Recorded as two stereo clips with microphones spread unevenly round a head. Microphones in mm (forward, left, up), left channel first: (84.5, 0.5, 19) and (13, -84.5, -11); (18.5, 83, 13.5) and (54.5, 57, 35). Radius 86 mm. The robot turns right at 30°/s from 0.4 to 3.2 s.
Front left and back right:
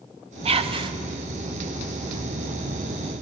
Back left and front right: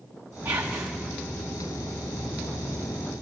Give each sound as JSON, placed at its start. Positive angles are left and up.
{"t": 0.5, "sound": "whispering", "azimuth_deg": -105, "distance_m": 0.8}